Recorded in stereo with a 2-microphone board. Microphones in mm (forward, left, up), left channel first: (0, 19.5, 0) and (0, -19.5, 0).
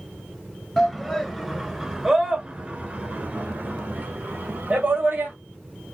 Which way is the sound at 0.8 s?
10° left (ahead or behind).